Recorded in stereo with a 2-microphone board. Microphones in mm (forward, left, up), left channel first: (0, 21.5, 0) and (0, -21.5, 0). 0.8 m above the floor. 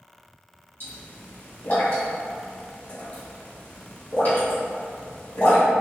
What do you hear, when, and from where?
0.8 s a pop: 55° left (ahead or behind), 1.4 m